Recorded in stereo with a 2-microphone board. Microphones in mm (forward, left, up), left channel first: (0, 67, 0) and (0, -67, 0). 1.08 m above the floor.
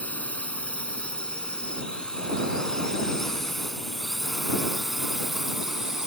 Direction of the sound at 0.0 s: 10° left (ahead or behind).